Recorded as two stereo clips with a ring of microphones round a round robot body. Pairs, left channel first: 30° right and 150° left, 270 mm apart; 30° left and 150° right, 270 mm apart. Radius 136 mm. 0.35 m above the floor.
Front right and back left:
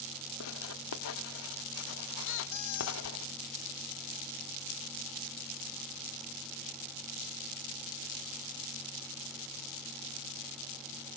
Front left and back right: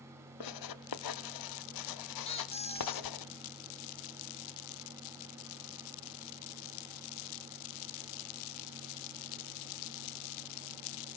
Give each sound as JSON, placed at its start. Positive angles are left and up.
{"t": 0.4, "sound": "writing", "azimuth_deg": 15, "distance_m": 0.6}
{"t": 2.2, "sound": "a squeak", "azimuth_deg": -40, "distance_m": 0.9}